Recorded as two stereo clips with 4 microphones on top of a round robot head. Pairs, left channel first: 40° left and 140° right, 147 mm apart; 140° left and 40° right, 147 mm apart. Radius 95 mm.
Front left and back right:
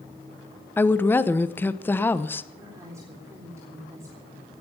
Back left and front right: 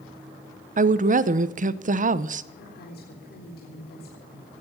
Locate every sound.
0.8 s a woman speaking: 35° right, 1.0 m
2.6 s a woman speaking: 150° left, 4 m